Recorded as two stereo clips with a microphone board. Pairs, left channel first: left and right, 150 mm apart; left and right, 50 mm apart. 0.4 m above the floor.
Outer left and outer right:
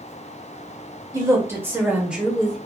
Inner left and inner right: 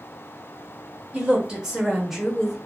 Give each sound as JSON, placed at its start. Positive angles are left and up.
{"t": 1.1, "sound": "a woman speaking", "side_deg": -20, "distance_m": 1.4}